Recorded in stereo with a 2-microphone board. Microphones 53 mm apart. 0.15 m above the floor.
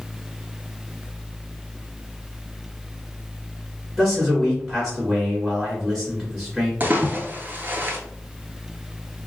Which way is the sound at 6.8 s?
35° right (ahead or behind).